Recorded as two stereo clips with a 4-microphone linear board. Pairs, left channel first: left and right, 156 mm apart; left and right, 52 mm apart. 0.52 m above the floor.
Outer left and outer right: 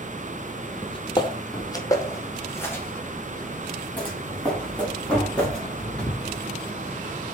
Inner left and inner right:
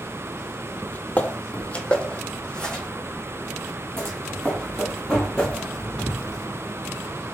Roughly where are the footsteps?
Left.